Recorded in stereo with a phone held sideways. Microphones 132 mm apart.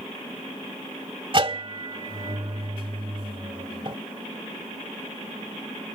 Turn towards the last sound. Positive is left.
turn(degrees=-40)  # may be behind; listen again after turning